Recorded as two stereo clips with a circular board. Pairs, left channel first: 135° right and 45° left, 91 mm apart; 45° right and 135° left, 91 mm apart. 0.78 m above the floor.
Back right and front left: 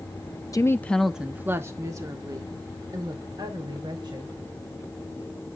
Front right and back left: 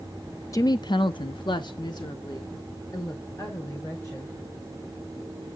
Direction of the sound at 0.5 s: 90° right.